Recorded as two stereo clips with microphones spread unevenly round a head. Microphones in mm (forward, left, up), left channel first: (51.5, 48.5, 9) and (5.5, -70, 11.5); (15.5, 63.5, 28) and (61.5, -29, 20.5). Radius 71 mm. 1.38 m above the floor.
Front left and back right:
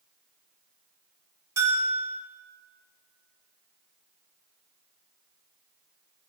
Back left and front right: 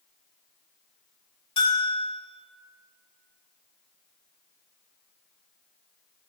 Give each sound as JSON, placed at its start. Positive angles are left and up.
{"t": 1.6, "sound": "a bell", "azimuth_deg": 175, "distance_m": 2.5}